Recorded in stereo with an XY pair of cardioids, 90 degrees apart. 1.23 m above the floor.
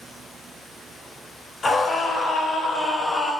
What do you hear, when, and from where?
1.6 s a scream: 45° left, 4.5 m; by 3.3 s 50° left, 5.5 m